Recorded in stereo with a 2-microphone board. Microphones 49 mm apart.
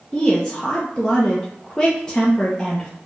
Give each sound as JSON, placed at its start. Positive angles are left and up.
{"t": 0.1, "sound": "a woman speaking", "side_deg": 20, "distance_m": 0.8}